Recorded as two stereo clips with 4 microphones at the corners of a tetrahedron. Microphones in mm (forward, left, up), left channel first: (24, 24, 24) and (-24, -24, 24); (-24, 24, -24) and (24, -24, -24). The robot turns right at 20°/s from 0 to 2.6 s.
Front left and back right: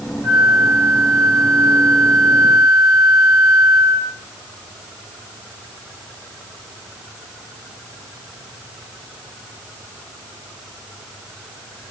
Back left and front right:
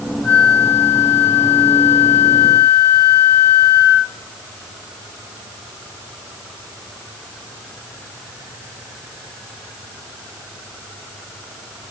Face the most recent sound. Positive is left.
turn(degrees=-155)